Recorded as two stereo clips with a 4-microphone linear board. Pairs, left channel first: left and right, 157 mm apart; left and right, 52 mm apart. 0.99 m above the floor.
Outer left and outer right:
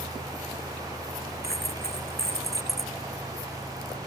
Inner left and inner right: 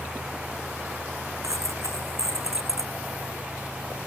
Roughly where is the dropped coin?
Right.